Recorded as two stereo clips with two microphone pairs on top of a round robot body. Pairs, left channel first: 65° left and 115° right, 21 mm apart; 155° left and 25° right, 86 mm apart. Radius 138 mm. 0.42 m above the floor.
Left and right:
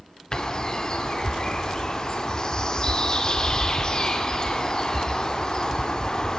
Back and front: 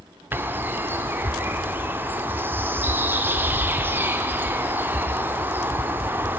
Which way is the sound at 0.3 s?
30° left.